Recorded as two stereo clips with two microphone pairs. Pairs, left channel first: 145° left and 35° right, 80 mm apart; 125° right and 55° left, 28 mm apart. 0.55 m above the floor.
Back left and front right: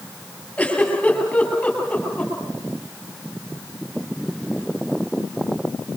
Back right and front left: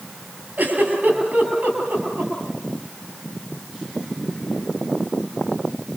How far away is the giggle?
About 7 m.